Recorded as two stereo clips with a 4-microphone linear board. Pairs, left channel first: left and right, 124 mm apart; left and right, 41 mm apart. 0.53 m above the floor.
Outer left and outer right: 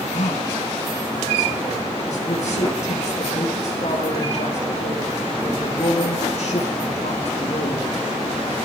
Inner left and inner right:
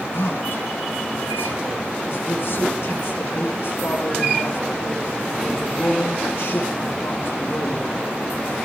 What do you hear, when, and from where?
0.1 s a man speaking: 60° left (ahead or behind), 6.5 m